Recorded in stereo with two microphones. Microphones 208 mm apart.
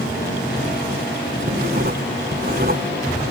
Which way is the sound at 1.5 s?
50° right (ahead or behind).